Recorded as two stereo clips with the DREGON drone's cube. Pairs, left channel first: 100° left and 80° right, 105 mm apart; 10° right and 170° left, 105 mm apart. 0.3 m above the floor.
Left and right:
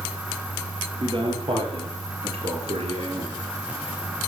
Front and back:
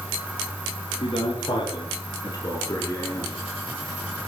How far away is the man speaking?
About 6 m.